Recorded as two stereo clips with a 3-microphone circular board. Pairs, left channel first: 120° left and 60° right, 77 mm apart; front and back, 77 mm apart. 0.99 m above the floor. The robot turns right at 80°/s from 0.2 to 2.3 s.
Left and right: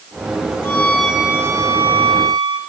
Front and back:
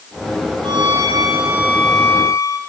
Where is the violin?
175° left, 6 m; by 2.6 s 50° right, 6 m.